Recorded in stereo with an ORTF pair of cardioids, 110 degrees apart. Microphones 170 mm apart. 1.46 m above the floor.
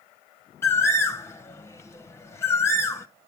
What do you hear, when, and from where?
0.6 s a bird: 15° left, 0.7 m